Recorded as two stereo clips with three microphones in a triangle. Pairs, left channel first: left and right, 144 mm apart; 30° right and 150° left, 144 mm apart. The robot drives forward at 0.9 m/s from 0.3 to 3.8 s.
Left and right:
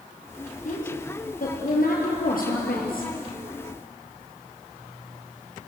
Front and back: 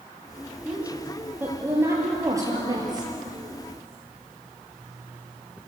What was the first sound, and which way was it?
A woman speaking, 70° left.